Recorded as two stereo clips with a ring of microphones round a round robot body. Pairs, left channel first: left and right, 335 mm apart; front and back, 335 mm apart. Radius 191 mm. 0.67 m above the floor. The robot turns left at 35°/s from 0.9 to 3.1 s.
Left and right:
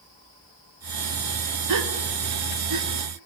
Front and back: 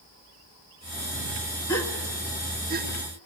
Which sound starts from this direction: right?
A gasp, at 1.7 s.